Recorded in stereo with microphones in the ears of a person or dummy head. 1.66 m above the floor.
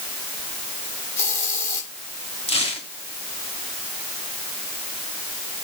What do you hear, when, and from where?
1.2 s a hiss: 15° left (ahead or behind), 6 m
2.5 s tearing paper: 30° left (ahead or behind), 2 m